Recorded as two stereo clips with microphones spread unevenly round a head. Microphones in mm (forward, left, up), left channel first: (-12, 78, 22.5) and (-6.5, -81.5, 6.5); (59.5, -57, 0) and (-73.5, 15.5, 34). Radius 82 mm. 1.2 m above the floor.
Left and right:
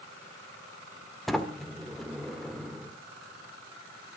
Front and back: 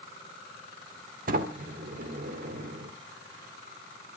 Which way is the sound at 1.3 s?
Straight behind.